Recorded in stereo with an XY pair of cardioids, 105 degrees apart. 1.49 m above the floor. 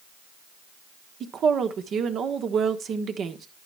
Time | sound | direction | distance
1.2 | a woman speaking | 60° right | 1.3 m